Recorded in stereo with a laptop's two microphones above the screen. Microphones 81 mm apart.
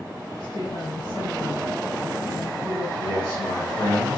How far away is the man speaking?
About 2.5 m.